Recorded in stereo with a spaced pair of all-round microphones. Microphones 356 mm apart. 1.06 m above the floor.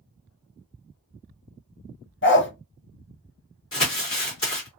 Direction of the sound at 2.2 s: 35° left (ahead or behind).